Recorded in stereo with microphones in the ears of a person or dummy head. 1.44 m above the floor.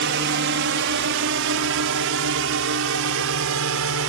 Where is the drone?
55° right (ahead or behind); by 4.1 s 70° right (ahead or behind).